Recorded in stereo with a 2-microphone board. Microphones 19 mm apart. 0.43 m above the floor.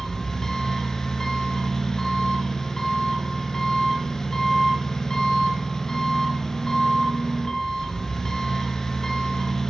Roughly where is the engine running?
Left.